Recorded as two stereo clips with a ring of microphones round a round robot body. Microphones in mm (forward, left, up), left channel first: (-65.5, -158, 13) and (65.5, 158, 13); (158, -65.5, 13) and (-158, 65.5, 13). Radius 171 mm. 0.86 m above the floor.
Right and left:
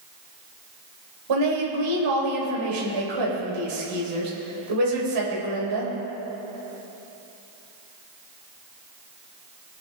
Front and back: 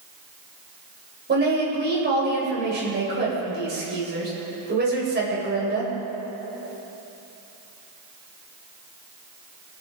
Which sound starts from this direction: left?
A woman speaking, at 1.3 s.